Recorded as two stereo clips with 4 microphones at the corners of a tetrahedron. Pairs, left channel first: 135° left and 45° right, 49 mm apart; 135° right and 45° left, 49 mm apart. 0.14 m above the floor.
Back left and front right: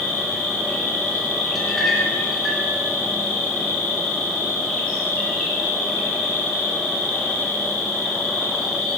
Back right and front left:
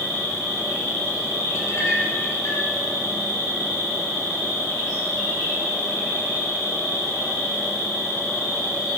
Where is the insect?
150° right, 7.5 m.